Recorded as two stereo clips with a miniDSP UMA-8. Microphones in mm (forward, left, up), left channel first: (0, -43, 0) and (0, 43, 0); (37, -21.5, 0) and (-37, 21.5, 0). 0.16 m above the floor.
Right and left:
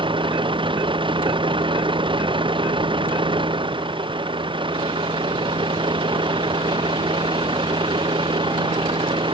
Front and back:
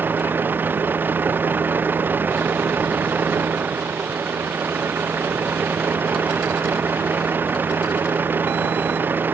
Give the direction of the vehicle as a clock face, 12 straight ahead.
9 o'clock.